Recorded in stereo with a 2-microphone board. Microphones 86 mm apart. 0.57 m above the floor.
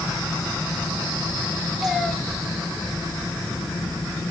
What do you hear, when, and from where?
1.8 s a cat meowing: centre (ahead or behind), 2.5 m